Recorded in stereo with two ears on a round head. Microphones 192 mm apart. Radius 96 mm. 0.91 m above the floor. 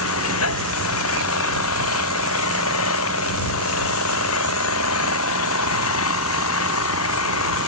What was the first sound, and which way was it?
An engine running, 70° left (ahead or behind).